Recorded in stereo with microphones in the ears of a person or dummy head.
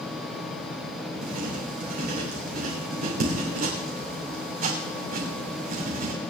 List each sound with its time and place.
1.2 s writing: 50° right (ahead or behind), 3 m